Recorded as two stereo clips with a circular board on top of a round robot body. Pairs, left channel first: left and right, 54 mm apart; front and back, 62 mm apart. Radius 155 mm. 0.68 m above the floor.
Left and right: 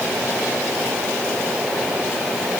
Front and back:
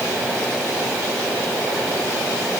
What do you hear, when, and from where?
Only background noise.